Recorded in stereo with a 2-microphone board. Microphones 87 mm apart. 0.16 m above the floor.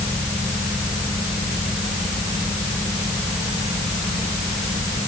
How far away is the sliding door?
I don't hear a sliding door.